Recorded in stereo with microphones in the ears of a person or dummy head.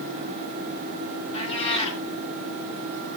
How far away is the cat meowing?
About 4.5 m.